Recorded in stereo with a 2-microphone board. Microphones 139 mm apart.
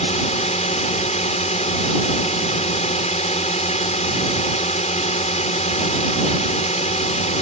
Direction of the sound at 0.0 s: 55° left (ahead or behind).